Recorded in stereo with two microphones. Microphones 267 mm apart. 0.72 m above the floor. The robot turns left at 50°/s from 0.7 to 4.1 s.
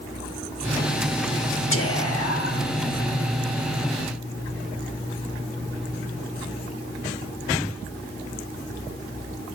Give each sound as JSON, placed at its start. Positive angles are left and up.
{"t": 1.7, "sound": "whispering", "azimuth_deg": 120, "distance_m": 1.3}